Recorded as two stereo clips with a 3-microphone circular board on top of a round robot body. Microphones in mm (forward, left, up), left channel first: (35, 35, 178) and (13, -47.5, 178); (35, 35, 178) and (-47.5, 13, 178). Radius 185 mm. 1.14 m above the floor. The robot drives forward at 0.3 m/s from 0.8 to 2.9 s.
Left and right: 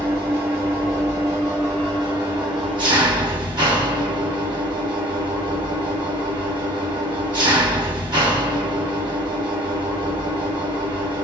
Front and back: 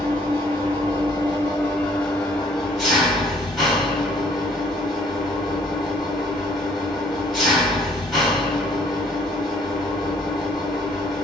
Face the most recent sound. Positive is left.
turn(degrees=-70)